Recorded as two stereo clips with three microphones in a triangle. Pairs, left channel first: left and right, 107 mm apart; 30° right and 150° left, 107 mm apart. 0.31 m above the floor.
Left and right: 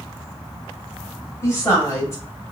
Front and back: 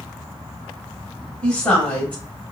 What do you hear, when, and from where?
1.4 s a woman speaking: 40° left, 1.1 m